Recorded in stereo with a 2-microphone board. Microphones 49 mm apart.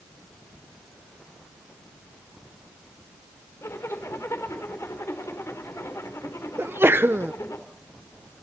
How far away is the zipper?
About 4 m.